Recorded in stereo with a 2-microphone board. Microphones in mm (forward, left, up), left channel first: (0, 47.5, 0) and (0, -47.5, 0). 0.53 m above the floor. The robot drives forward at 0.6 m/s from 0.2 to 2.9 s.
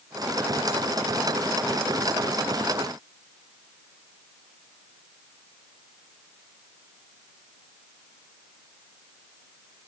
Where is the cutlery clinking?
No cutlery clinking in this recording.